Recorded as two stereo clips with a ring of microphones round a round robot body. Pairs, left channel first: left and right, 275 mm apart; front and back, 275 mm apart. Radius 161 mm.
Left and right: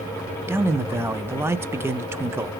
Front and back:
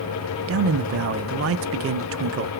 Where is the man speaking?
170° right, 0.5 m.